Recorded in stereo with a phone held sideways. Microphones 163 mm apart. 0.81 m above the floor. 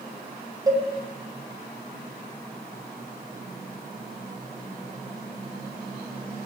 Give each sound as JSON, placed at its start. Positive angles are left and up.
{"t": 0.7, "sound": "a cowbell", "side_deg": -20, "distance_m": 0.7}